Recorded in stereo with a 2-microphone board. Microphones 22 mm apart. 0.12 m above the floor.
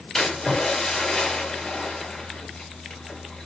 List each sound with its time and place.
0.1 s a splash: 35° left (ahead or behind), 2 m